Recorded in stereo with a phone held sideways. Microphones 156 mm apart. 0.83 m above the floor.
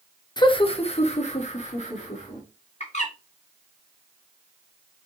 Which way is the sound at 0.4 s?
30° left (ahead or behind).